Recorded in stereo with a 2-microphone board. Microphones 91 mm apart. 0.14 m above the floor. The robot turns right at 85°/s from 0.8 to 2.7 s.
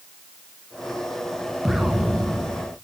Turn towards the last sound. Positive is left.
turn(degrees=-20)  # may be behind; listen again after turning